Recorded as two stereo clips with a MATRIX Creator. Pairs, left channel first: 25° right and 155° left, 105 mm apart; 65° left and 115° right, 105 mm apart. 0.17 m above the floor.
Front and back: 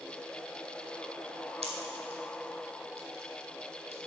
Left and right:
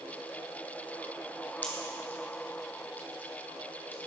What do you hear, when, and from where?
1.6 s a pop: 140° left, 1.4 m